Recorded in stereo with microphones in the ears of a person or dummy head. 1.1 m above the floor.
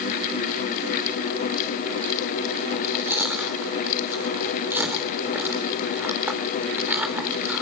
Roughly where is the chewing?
Centre.